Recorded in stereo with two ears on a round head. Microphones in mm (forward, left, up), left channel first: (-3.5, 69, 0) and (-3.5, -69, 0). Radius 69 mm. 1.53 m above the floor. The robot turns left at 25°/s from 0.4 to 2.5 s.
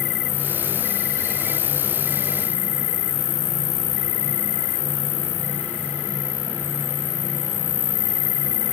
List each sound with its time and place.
0.0 s an insect: 100° left; by 8.7 s 50° left